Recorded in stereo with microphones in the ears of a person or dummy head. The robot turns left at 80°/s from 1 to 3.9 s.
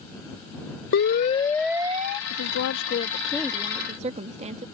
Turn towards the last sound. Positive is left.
turn(degrees=-30)